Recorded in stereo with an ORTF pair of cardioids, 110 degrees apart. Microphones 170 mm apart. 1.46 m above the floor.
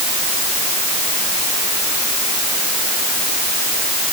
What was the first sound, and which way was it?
Only background noise.